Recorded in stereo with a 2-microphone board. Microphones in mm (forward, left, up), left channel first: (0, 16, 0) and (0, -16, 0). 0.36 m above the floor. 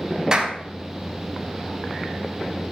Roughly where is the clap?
Right.